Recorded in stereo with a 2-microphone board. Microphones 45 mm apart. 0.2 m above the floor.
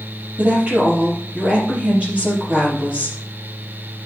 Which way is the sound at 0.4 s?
30° right (ahead or behind).